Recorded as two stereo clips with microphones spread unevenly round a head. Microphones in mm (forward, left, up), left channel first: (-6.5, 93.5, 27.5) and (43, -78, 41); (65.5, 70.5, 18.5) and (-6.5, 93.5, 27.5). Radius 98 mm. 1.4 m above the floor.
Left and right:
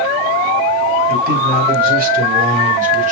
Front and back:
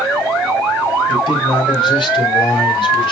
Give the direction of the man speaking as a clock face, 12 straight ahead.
1 o'clock.